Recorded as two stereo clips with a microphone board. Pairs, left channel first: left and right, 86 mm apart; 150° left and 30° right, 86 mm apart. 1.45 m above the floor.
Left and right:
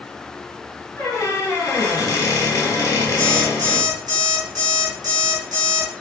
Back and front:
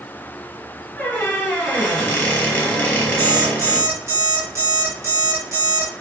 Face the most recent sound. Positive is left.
turn(degrees=-70)